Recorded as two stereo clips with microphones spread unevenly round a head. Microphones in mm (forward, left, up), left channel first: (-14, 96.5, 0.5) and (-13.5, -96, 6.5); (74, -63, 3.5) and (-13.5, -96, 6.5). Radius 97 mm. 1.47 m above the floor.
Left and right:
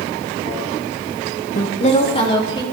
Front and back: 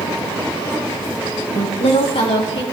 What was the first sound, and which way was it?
A woman speaking, 40° left.